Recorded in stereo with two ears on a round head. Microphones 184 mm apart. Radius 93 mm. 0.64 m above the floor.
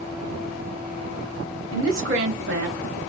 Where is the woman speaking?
70° right (ahead or behind), 1.6 m; by 3.0 s 40° right (ahead or behind), 1.5 m.